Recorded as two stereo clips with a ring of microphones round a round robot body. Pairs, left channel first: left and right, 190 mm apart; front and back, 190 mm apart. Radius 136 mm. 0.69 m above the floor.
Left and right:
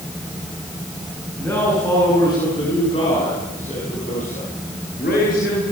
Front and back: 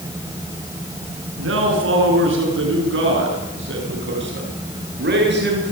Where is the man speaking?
175° left, 9 m; by 5.7 s 150° left, 12.5 m.